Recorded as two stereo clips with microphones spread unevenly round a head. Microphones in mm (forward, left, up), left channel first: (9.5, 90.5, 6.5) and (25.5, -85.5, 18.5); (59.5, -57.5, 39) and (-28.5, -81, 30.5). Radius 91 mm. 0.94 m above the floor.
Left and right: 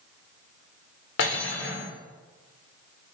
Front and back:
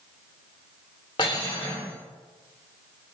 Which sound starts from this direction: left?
Cutlery clinking, at 1.2 s.